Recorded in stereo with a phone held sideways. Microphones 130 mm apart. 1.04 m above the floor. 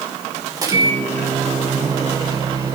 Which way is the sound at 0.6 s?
30° right (ahead or behind).